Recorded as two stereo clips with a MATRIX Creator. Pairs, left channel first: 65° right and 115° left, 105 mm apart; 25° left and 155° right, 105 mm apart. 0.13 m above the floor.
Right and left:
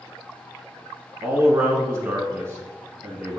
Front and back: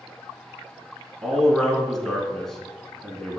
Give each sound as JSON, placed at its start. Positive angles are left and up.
{"t": 1.2, "sound": "a man speaking", "azimuth_deg": 105, "distance_m": 1.2}